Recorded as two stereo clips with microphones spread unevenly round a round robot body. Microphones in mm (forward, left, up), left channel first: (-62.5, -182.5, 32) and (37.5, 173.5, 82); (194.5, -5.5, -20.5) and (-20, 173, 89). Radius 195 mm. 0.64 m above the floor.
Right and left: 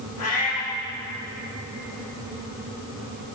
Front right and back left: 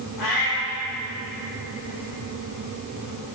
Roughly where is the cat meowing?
Ahead right.